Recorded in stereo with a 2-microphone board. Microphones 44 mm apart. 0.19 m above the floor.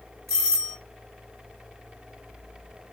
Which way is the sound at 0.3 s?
5° left (ahead or behind).